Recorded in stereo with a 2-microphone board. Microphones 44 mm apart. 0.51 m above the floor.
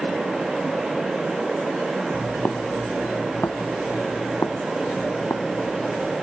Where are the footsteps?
35° left (ahead or behind); by 6.1 s 65° left (ahead or behind).